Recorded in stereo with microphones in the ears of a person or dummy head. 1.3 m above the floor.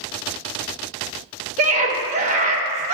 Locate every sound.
1.6 s a scream: 45° right (ahead or behind), 1.0 m